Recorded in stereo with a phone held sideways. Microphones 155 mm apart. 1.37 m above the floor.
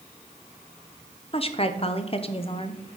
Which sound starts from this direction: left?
A woman speaking, at 1.3 s.